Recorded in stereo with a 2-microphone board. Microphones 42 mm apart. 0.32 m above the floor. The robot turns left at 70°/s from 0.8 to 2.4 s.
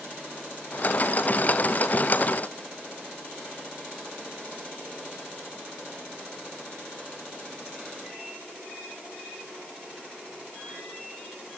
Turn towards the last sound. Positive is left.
No sound to turn to.